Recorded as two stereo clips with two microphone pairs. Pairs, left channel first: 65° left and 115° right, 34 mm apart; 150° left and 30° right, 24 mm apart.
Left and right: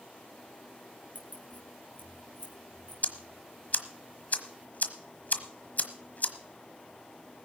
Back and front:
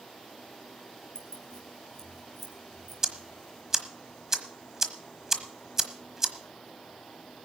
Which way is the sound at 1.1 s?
95° left.